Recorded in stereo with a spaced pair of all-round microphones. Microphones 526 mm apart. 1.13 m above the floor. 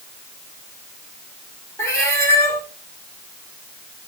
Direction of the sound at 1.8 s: 5° left (ahead or behind).